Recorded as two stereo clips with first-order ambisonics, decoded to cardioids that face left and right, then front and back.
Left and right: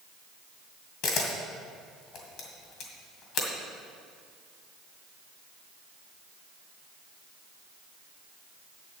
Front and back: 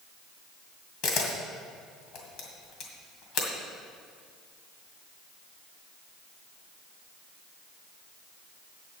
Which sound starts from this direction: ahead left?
A camera shutter, at 1.0 s.